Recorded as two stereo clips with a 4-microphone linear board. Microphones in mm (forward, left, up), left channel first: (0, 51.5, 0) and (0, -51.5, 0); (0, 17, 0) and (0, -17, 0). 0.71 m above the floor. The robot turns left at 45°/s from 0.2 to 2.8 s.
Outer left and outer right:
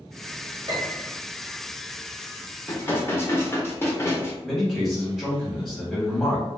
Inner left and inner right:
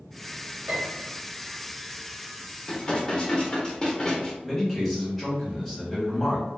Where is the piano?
45° right (ahead or behind), 1.5 m.